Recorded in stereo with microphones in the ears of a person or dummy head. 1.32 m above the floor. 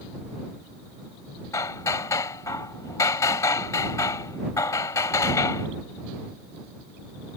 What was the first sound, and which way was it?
Hammering, 15° left (ahead or behind).